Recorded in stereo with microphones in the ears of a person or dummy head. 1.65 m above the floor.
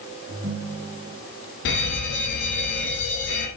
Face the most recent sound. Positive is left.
turn(degrees=55)  # may be behind; listen again after turning